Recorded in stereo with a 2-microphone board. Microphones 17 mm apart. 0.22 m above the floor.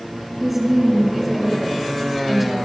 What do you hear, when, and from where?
0.4 s a woman speaking: 5° right (ahead or behind), 3.5 m